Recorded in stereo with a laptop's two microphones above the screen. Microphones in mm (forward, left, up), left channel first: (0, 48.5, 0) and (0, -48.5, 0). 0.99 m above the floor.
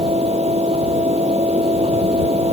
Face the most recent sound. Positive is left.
turn(degrees=-85)